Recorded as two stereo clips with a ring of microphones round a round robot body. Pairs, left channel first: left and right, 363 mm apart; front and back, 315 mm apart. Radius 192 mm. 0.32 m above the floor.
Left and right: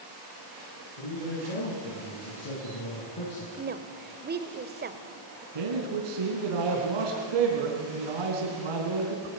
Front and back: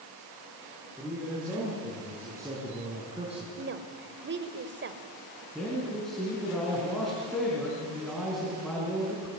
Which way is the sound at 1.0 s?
95° left.